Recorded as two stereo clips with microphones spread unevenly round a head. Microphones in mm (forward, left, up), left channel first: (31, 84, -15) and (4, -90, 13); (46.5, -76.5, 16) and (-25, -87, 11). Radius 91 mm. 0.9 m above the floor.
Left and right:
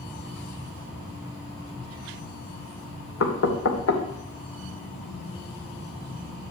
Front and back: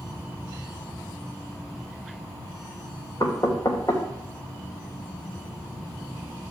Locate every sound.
3.2 s knocking: 75° left, 2.5 m